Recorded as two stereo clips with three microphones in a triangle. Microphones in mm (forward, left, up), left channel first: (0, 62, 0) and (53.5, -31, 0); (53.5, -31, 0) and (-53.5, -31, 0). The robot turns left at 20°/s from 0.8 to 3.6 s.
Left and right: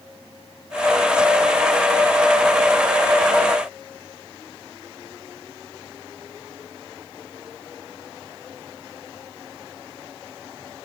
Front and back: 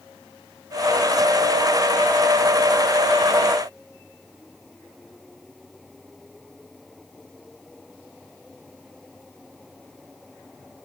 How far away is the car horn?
I don't hear a car horn.